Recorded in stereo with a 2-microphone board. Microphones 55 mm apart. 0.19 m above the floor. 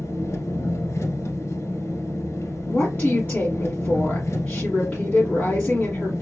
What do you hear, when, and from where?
0.0 s an engine running: 60° left (ahead or behind), 1.2 m
2.7 s a woman speaking: 35° left (ahead or behind), 1.7 m